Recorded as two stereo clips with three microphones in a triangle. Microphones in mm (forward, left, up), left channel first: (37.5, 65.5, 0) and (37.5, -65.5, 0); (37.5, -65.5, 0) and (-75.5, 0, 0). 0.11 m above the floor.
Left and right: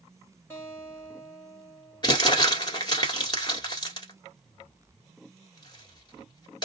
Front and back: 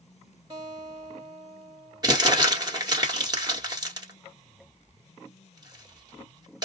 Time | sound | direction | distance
0.5 | a guitar | 145° left | 1.9 m
2.0 | crumpling | 115° left | 1.4 m